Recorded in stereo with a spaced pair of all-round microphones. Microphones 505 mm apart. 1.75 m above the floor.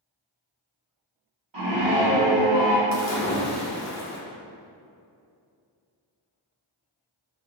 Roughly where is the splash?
Left.